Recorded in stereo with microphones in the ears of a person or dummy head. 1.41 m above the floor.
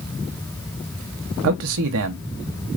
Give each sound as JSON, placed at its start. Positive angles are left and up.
{"t": 1.4, "sound": "a man speaking", "side_deg": -75, "distance_m": 0.8}